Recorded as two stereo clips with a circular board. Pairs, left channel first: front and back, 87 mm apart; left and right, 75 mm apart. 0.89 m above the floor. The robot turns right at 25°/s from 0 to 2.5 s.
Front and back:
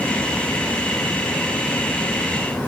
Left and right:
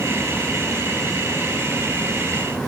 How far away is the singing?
I don't hear singing.